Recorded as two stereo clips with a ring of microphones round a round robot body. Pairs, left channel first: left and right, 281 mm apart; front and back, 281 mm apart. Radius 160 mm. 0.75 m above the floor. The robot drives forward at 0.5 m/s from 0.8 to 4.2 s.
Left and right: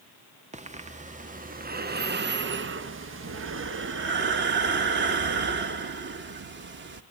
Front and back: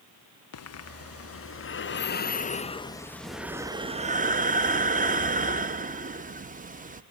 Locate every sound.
0.5 s breathing: 25° right, 1.5 m; by 7.0 s 125° right, 1.0 m